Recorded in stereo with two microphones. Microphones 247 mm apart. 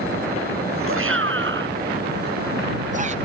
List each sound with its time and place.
0.9 s a shout: 60° right (ahead or behind); by 3.1 s 30° right (ahead or behind)